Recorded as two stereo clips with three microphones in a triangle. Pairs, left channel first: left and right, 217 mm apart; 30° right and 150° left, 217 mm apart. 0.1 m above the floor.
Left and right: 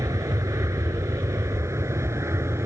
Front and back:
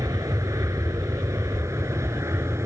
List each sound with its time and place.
0.0 s an aircraft: 150° right